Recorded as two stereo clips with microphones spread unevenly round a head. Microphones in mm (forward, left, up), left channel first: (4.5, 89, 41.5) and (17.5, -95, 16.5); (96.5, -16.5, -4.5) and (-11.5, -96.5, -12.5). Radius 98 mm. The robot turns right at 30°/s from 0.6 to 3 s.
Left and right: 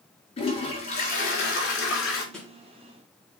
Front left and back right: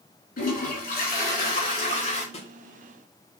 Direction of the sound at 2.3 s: 15° left.